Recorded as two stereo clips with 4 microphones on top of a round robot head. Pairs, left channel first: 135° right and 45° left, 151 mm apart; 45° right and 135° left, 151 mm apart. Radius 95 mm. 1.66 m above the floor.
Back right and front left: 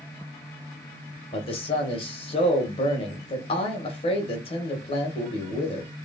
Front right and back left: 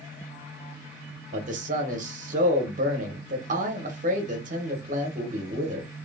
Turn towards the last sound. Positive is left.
turn(degrees=170)